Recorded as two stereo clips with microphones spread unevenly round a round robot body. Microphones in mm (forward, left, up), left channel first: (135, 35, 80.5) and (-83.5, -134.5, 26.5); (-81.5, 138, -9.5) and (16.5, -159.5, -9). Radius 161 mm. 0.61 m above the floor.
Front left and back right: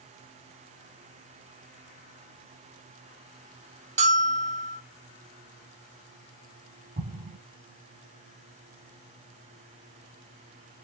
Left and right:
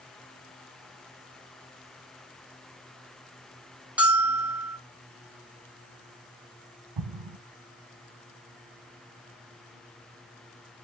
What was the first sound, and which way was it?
A bell, 155° right.